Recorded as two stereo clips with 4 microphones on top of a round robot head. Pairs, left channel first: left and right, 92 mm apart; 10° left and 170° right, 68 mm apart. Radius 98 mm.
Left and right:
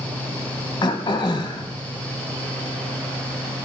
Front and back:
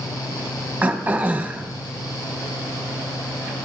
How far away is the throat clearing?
About 0.8 m.